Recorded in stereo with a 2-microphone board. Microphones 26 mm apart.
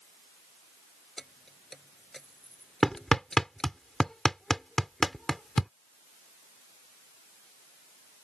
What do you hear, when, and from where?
1.2 s keys jangling: 15° left (ahead or behind); by 3.7 s 20° left (ahead or behind)
2.8 s hammering: 15° left (ahead or behind)